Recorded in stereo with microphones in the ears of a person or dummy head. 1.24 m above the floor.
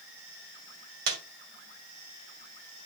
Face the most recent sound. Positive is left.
turn(degrees=-65)  # may be behind; listen again after turning